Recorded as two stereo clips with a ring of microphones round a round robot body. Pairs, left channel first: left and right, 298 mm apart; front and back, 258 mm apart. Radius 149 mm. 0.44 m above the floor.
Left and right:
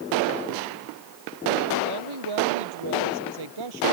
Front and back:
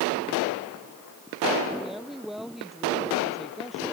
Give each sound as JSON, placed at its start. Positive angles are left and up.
{"t": 1.8, "sound": "a woman speaking", "azimuth_deg": -90}